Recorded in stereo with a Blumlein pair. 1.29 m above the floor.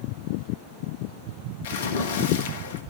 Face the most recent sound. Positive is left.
turn(degrees=55)